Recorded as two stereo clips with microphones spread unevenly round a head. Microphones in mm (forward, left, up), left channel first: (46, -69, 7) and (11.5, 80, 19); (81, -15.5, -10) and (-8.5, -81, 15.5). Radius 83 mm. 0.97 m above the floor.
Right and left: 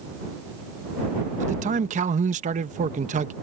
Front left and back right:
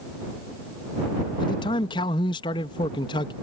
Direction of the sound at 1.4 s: 70° left.